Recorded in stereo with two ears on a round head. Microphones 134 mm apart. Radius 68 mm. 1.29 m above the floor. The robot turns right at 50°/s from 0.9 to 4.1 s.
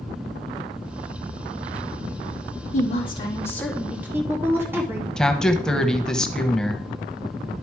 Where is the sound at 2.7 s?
125° left, 2.5 m; by 5.1 s 165° right, 2.5 m.